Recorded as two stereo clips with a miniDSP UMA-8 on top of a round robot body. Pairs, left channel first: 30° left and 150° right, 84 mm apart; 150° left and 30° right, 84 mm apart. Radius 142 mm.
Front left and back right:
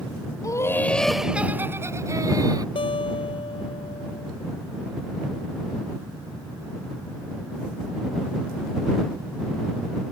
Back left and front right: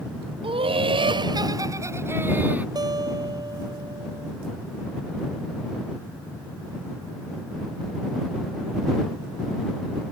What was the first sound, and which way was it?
Laughter, 20° right.